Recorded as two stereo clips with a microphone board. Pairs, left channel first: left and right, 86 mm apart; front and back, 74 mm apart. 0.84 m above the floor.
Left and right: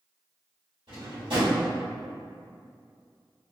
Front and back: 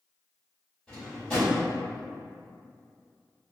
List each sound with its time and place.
0.9 s a drawer: 80° right, 1.7 m